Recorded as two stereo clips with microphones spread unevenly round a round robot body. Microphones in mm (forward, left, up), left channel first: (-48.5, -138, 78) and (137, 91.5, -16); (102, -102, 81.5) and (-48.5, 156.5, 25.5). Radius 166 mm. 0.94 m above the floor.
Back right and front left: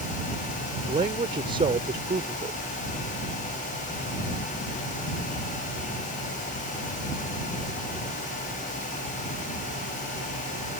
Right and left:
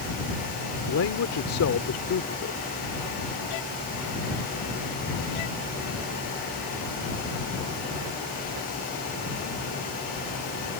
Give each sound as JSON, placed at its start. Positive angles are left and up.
{"t": 0.9, "sound": "a man speaking", "azimuth_deg": -20}